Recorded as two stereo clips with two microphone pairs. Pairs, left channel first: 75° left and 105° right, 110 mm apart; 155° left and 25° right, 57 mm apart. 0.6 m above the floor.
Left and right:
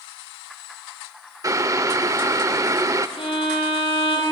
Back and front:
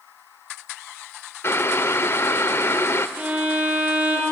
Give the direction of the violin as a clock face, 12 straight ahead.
11 o'clock.